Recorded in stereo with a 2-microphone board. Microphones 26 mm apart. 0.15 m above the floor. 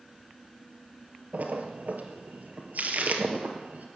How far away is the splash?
About 2 m.